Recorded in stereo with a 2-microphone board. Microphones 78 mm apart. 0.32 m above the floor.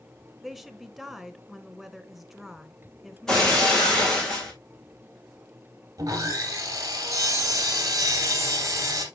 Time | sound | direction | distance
0.4 | a woman speaking | centre (ahead or behind) | 1.2 m
3.3 | breaking glass | 5° left (ahead or behind) | 4 m
6.0 | sawing | 45° right (ahead or behind) | 2.5 m